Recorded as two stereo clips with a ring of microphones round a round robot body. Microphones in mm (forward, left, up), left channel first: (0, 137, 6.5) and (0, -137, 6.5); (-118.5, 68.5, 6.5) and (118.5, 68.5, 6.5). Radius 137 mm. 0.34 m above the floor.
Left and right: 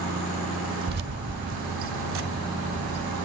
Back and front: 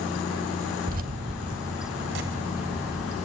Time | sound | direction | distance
0.9 | keys jangling | 50° right | 0.7 m